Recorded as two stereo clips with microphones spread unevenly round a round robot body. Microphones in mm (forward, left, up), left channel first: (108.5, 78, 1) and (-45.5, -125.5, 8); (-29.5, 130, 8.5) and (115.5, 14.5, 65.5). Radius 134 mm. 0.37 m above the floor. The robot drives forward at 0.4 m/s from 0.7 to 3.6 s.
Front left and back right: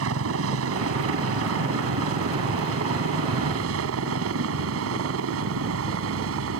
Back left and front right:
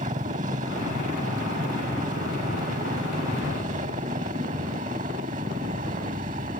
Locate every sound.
0.0 s a helicopter: 105° right; by 6.6 s 100° right